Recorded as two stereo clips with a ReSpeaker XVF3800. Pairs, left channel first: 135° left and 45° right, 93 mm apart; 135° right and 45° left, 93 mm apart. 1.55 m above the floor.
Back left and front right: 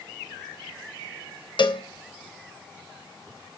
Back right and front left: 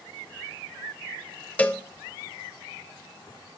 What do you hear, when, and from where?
1.6 s a cowbell: 155° left, 0.6 m